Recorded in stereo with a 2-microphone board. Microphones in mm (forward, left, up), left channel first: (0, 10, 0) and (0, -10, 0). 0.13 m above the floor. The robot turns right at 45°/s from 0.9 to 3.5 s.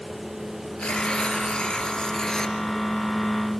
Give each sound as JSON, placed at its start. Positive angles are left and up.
{"t": 0.8, "sound": "tearing paper", "azimuth_deg": 75, "distance_m": 3.0}